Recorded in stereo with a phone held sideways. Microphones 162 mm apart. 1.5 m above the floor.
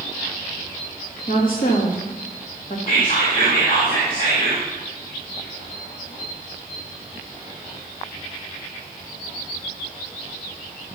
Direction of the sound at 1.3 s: 65° left (ahead or behind).